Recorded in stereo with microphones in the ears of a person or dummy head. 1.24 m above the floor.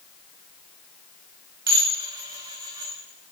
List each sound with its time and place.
1.7 s dishes clattering: 20° right (ahead or behind), 0.7 m